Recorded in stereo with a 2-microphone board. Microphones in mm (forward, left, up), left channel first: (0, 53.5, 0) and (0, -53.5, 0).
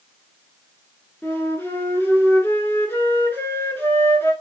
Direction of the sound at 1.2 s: 20° left (ahead or behind).